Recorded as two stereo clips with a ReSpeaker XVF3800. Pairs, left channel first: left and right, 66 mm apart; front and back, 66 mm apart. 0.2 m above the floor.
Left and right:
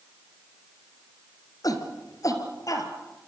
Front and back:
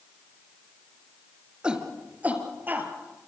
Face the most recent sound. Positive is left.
turn(degrees=120)